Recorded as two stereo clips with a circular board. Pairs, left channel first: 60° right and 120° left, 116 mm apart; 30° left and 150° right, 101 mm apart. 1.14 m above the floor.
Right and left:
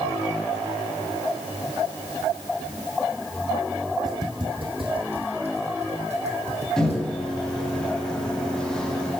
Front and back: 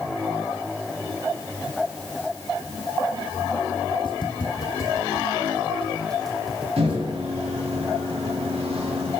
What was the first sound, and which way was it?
Footsteps, 70° left.